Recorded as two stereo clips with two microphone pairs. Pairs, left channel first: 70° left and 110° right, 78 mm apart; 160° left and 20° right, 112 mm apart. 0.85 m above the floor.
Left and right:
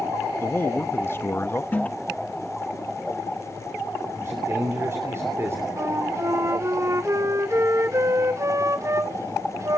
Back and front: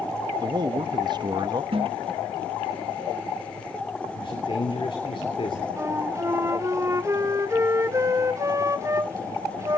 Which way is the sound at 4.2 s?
165° right.